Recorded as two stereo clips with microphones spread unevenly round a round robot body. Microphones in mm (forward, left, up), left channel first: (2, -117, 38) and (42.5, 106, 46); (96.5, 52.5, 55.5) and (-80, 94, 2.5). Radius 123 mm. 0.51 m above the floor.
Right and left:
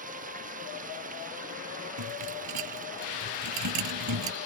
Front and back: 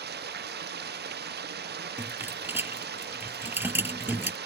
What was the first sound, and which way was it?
Running water, 140° left.